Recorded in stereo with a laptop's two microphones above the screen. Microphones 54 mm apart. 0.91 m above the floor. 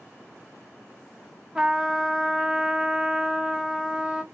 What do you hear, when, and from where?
1.6 s a trumpet: 15° right (ahead or behind), 0.6 m